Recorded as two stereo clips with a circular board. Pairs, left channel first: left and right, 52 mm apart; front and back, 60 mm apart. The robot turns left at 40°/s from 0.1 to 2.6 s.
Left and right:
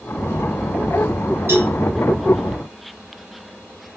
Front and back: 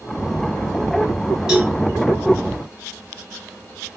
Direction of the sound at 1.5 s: 100° right.